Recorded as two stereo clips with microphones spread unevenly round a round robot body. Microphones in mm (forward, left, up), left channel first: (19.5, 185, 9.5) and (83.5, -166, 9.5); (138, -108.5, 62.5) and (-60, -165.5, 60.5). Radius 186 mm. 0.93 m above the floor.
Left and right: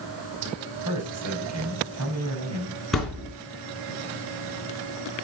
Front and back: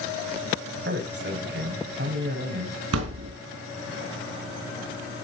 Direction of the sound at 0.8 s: 130° right.